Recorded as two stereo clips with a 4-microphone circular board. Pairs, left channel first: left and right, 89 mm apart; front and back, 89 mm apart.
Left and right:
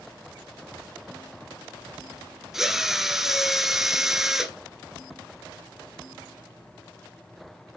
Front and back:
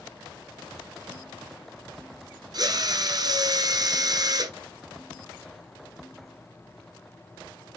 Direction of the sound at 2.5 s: 175° right.